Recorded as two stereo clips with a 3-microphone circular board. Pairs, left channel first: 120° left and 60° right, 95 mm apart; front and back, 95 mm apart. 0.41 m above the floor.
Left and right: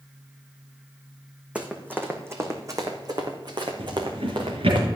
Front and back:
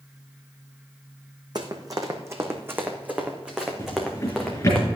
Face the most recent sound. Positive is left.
turn(degrees=-60)